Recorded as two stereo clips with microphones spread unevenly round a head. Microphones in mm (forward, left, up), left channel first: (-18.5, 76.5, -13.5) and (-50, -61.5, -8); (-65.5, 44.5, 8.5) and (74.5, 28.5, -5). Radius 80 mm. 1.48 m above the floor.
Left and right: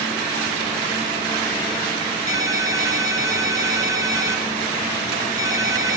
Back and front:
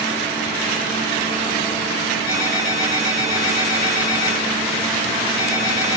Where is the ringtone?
170° right, 7.5 m.